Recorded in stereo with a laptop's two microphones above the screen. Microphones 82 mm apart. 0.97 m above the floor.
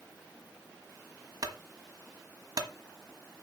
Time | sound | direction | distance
1.4 | a clunk | 55° right (ahead or behind) | 1.3 m